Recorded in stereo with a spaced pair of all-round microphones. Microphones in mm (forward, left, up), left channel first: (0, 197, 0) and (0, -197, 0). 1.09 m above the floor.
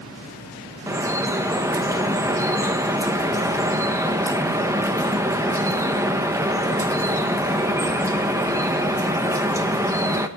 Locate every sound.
0.9 s dripping: 10° right (ahead or behind), 1.0 m